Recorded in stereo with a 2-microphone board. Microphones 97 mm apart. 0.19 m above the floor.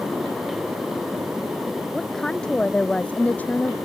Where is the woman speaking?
5° left (ahead or behind); by 3.8 s 20° left (ahead or behind).